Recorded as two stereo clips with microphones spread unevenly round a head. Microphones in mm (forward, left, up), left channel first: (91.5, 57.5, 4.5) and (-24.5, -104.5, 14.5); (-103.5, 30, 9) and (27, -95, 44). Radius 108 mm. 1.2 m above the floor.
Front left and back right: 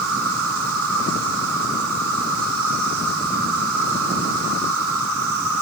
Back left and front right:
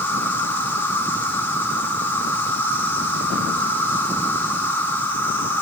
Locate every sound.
0.0 s an insect: 145° right, 3.5 m